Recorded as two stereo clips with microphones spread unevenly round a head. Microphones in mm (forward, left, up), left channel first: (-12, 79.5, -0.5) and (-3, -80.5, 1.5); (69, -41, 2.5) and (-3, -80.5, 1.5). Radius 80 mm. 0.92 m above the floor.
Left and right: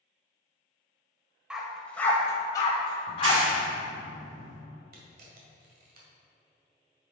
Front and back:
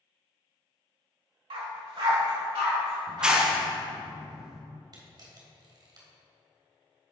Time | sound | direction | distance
1.5 | a dog barking | 170° right | 1.1 m
3.1 | a clap | 70° right | 1.2 m
4.9 | a camera shutter | 120° right | 1.9 m